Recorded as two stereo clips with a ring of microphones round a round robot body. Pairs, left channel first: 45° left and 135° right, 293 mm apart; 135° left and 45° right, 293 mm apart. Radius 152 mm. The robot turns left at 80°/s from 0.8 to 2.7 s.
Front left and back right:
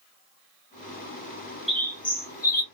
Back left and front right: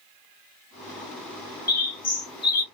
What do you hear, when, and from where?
1.7 s a bird: 135° left, 0.9 m; by 2.6 s 60° left, 0.9 m